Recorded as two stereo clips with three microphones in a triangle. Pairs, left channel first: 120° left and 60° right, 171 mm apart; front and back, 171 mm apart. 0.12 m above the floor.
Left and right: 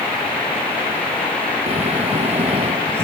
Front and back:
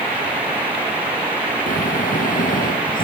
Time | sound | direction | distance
1.7 | snoring | 15° right | ?